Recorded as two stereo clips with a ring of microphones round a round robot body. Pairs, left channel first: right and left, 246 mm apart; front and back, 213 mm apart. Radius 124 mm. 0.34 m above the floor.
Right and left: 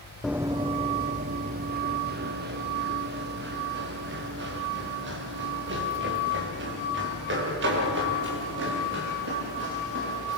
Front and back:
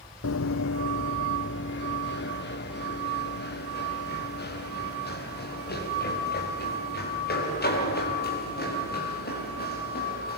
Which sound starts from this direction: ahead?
Running footsteps, at 0.2 s.